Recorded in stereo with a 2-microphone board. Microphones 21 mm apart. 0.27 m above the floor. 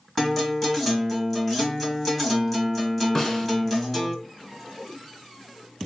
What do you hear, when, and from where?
0.2 s a guitar: 10° left (ahead or behind), 1.2 m
3.1 s a snare drum: 25° left (ahead or behind), 0.8 m